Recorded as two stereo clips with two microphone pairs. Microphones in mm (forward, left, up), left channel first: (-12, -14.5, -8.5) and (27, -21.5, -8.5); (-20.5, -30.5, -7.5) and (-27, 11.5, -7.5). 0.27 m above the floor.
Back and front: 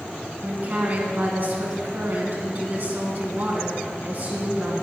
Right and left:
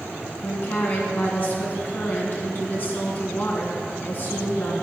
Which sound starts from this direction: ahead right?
A woman speaking, at 0.4 s.